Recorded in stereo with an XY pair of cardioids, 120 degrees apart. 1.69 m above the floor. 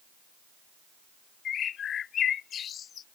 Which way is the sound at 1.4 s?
50° left.